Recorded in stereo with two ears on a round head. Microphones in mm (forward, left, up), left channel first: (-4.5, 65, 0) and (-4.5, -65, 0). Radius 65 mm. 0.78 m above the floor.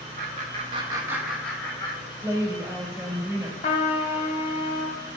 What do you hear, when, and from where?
0.2 s laughter: 55° right (ahead or behind), 1.6 m; by 2.0 s 25° left (ahead or behind), 1.8 m
2.2 s a woman speaking: 25° right (ahead or behind), 2.5 m
3.6 s a trumpet: 45° left (ahead or behind), 1.3 m